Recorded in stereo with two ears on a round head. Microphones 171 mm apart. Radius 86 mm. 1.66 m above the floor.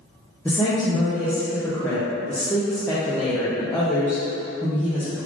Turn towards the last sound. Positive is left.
turn(degrees=10)  # may be behind; listen again after turning